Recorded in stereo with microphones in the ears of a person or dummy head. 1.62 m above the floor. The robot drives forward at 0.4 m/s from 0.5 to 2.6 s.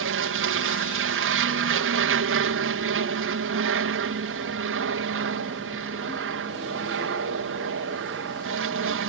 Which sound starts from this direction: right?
An aircraft, at 0.0 s.